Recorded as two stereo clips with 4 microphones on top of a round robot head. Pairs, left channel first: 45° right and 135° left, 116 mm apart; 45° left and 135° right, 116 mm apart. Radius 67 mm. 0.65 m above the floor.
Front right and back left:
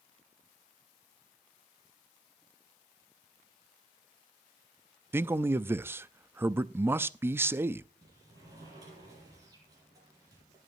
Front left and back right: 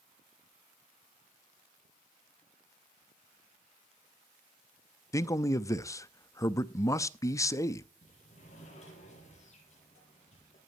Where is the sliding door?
75° left, 8 m.